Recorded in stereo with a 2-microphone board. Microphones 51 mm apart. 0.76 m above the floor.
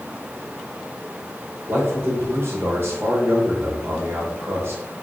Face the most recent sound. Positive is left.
turn(degrees=-50)  # may be behind; listen again after turning